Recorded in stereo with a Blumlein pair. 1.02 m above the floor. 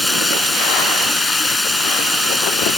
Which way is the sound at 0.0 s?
5° left.